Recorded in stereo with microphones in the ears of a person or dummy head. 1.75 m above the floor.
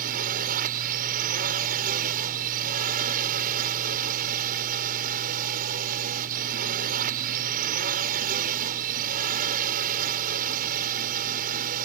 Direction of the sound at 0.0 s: 50° right (ahead or behind).